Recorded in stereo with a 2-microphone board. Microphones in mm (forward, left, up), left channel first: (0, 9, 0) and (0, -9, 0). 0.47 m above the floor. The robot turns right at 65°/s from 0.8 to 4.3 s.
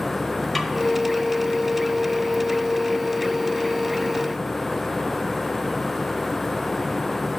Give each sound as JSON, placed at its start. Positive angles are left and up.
{"t": 0.6, "sound": "a snare drum", "side_deg": 5, "distance_m": 1.0}